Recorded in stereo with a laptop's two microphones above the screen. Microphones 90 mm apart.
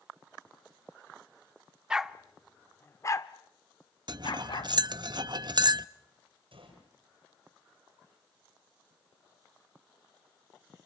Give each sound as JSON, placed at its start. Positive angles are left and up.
{"t": 1.9, "sound": "a dog barking", "side_deg": -10, "distance_m": 0.9}
{"t": 4.1, "sound": "cutlery clinking", "side_deg": -55, "distance_m": 0.6}
{"t": 6.5, "sound": "a gunshot", "side_deg": -80, "distance_m": 9.0}